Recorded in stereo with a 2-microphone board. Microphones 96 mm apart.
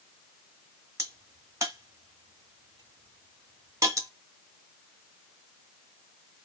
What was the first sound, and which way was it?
A crack, 35° right (ahead or behind).